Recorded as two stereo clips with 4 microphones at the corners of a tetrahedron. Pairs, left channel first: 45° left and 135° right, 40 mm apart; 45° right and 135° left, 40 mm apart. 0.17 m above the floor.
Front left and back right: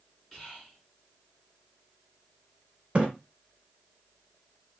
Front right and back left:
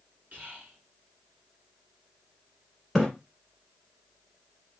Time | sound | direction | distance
0.3 | whispering | 130° left | 2 m
3.0 | a splash | 130° right | 1.1 m